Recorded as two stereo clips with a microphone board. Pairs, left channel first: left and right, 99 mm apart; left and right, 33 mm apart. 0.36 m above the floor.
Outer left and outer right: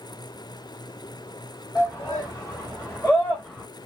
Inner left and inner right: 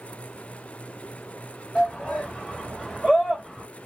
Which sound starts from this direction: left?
A shout, at 1.8 s.